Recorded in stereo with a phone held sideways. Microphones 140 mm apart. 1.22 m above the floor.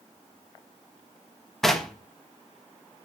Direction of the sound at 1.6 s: 5° left (ahead or behind).